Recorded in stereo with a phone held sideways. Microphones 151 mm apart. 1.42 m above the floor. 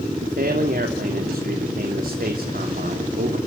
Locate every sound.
0.2 s a man speaking: 75° right (ahead or behind), 3 m